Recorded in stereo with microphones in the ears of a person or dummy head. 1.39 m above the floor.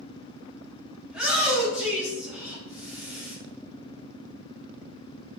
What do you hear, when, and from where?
1.1 s a shout: 5° right (ahead or behind), 2.5 m